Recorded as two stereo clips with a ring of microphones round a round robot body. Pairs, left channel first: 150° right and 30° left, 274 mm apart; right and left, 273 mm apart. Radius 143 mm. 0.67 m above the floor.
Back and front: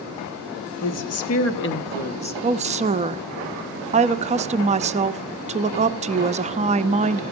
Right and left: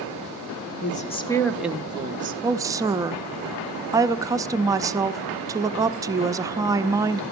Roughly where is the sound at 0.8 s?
Behind right.